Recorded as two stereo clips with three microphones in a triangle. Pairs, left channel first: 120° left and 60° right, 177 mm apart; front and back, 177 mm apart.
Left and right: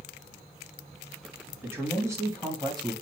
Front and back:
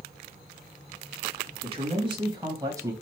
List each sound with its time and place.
1.6 s a man speaking: 135° right, 2 m; by 2.9 s 115° right, 1.9 m